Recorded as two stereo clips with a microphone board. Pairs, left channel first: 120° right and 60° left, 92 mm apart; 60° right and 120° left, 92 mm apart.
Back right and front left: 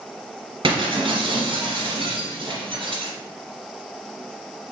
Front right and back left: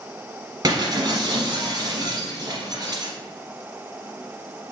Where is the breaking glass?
80° left, 2 m.